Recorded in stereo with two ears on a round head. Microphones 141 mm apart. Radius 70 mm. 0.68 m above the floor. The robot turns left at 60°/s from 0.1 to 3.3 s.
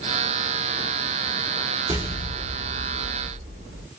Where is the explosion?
25° right, 1.7 m; by 3.8 s 110° right, 1.7 m.